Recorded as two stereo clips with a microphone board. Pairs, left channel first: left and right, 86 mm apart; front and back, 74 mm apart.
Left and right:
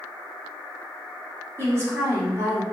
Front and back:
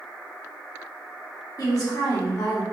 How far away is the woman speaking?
About 1.9 m.